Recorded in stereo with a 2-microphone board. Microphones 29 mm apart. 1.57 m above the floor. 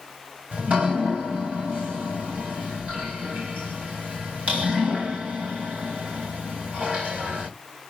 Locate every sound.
0.5 s dripping: 55° right (ahead or behind), 2.5 m